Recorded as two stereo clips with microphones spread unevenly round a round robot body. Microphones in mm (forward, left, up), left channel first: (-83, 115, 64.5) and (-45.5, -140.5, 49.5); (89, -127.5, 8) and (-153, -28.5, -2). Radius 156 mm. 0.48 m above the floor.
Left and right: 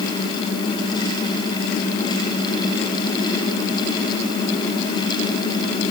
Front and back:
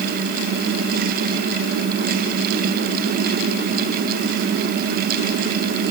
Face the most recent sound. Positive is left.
No sound to turn to.